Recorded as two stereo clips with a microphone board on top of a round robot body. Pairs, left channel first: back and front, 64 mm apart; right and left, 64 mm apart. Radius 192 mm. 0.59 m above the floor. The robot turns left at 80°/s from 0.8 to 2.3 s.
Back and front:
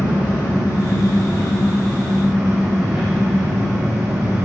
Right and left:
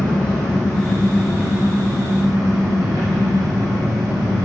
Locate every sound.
0.0 s an engine running: 170° right, 4 m; by 4.5 s 70° left, 4 m